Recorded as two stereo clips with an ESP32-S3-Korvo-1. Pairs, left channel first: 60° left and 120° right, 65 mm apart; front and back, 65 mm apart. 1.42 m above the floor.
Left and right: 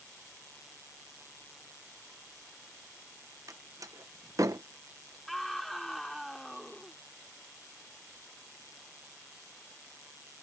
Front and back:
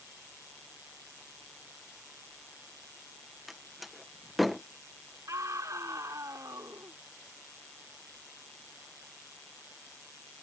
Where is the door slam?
90° right.